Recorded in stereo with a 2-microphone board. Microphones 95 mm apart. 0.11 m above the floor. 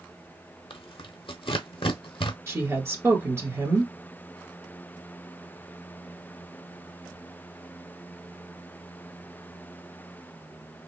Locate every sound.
0.7 s tearing paper: 70° left (ahead or behind), 0.5 m
2.5 s a woman speaking: 30° right (ahead or behind), 1.2 m